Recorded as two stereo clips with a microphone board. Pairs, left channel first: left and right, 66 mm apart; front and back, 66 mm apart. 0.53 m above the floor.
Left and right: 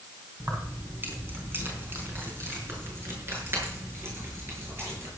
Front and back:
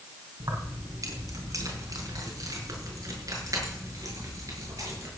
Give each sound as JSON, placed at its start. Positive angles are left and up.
{"t": 0.4, "sound": "keys jangling", "azimuth_deg": -150, "distance_m": 3.0}